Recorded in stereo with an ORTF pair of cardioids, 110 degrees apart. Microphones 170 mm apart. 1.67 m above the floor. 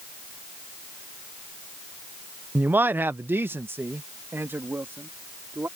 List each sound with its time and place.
2.5 s a man speaking: 10° right; by 5.7 s 15° right